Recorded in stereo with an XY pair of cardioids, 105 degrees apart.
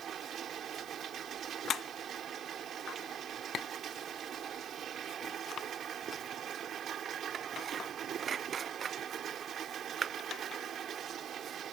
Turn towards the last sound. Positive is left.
turn(degrees=-60)